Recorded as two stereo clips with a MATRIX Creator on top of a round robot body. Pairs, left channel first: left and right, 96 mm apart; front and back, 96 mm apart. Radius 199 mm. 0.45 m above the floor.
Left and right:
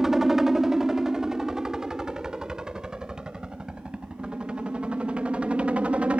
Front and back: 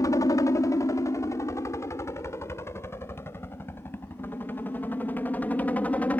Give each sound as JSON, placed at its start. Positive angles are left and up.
{"t": 0.0, "sound": "a helicopter", "azimuth_deg": -5}